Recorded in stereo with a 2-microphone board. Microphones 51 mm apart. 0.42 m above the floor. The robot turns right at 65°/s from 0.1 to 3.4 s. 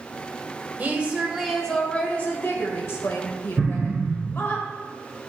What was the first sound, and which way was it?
A woman speaking, 45° right.